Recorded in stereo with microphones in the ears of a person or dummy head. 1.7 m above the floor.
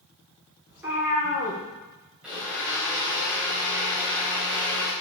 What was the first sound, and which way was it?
A cat meowing, 10° right (ahead or behind).